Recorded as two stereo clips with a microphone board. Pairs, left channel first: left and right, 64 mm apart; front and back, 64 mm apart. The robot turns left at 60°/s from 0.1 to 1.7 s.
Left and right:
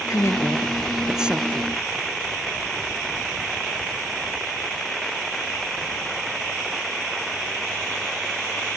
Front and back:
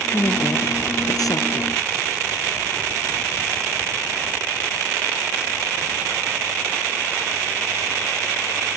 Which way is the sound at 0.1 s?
55° left.